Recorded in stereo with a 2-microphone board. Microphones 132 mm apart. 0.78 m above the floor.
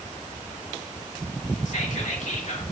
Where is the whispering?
65° left (ahead or behind), 2 m.